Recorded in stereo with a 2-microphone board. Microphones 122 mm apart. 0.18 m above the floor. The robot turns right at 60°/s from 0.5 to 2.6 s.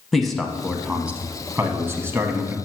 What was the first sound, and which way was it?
A man speaking, centre (ahead or behind).